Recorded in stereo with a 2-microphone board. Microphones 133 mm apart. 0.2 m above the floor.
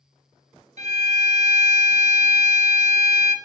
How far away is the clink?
No clink in this recording.